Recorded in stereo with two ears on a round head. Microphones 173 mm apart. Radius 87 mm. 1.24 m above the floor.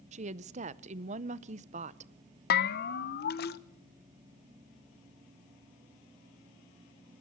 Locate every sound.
0.1 s a woman speaking: 35° right (ahead or behind), 0.7 m
2.5 s a bell: 55° left (ahead or behind), 0.9 m